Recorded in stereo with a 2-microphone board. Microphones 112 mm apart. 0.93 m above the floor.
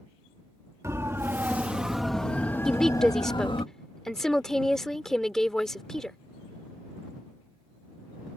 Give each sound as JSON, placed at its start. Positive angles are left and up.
{"t": 0.8, "sound": "a siren", "side_deg": -25}
{"t": 2.6, "sound": "a woman speaking", "side_deg": 5}